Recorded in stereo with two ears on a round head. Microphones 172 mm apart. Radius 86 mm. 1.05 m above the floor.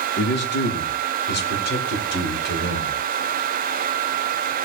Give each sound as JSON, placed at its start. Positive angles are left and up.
{"t": 0.2, "sound": "a man speaking", "side_deg": 60, "distance_m": 4.0}